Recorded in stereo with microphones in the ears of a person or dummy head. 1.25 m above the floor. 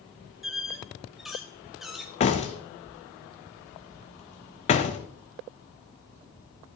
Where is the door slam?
35° left (ahead or behind), 1.0 m.